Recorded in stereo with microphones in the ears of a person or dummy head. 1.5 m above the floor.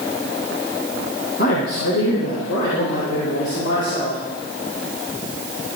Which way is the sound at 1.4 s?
60° left (ahead or behind).